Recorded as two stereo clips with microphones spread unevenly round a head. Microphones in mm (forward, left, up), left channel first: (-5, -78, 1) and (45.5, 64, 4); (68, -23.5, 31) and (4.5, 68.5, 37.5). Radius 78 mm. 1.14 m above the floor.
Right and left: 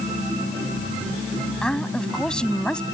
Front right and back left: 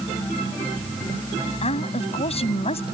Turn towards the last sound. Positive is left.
turn(degrees=-25)